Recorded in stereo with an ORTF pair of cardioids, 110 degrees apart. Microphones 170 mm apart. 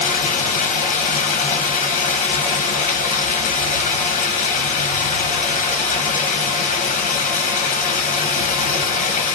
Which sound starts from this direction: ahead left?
Running water, at 0.0 s.